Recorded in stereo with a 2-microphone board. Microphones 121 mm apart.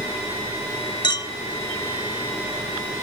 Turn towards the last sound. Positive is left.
turn(degrees=35)  # may be behind; listen again after turning